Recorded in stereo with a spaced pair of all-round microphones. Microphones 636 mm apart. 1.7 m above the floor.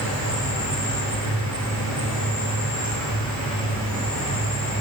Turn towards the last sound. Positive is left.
turn(degrees=30)  # may be behind; listen again after turning